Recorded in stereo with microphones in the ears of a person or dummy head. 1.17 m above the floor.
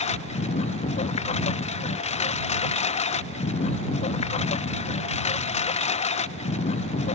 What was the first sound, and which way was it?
A lawn mower, 40° left (ahead or behind).